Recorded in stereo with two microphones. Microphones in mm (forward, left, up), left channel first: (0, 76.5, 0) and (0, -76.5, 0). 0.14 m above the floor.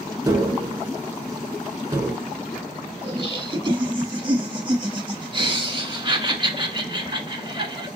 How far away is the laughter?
About 1.2 m.